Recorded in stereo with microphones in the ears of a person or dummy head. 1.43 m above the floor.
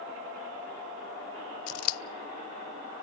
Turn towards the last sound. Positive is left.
turn(degrees=80)